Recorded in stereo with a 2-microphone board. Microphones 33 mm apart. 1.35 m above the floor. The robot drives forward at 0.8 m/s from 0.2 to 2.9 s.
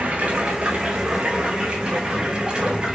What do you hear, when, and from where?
0.0 s running water: 45° right (ahead or behind), 3 m; by 3.0 s 25° right (ahead or behind), 5 m